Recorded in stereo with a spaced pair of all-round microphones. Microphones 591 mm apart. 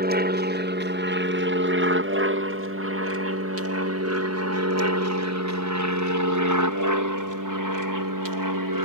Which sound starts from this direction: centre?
An aircraft, at 0.0 s.